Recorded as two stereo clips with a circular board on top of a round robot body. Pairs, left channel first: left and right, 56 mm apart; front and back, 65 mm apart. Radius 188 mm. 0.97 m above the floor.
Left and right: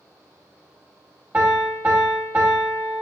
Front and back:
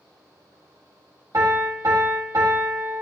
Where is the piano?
145° right, 2.5 m.